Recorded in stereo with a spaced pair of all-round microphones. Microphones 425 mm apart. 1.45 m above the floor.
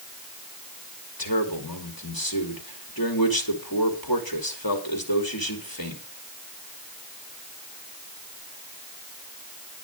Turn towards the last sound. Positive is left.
turn(degrees=55)  # may be behind; listen again after turning